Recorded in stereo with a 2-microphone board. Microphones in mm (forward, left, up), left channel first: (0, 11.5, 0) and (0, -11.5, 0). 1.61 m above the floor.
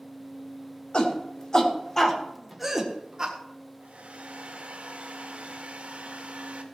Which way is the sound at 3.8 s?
75° right (ahead or behind).